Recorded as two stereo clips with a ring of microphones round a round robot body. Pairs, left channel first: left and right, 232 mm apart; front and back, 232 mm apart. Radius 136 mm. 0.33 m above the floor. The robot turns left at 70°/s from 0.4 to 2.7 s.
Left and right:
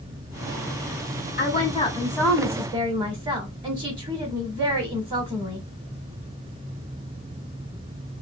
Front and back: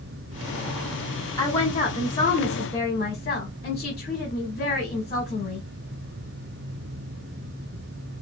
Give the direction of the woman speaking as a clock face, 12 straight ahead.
10 o'clock.